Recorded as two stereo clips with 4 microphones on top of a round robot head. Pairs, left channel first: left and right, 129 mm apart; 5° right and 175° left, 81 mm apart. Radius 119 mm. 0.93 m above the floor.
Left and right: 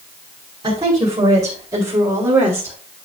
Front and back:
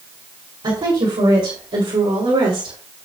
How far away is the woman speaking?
About 4.5 m.